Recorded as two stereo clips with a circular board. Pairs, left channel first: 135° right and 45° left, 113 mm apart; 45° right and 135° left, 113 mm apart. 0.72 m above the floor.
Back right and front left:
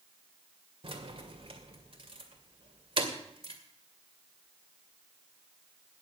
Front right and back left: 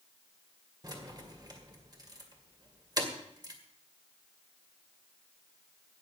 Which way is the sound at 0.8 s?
80° left.